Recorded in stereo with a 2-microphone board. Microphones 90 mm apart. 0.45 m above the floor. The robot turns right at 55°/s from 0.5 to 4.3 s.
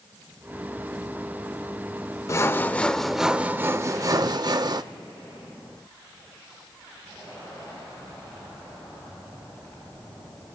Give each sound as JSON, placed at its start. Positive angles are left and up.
{"t": 2.3, "sound": "sawing", "azimuth_deg": 135, "distance_m": 0.5}